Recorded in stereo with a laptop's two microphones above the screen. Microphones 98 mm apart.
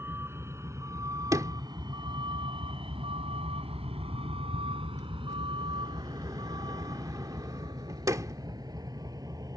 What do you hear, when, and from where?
0.0 s a vehicle: 25° right (ahead or behind); by 9.6 s 40° right (ahead or behind)
1.3 s a sliding door: 35° right (ahead or behind)